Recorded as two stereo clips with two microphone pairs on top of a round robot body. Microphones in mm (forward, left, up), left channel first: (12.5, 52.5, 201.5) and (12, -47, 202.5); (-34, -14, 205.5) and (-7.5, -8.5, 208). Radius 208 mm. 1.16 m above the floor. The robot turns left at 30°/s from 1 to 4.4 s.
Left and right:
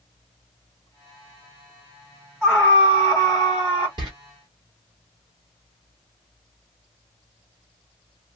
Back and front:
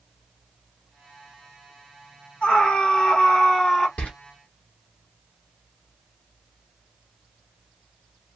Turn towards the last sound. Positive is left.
turn(degrees=-150)